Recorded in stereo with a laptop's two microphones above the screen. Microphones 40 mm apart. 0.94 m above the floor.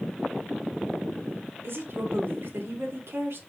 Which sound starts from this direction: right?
A woman speaking, at 1.6 s.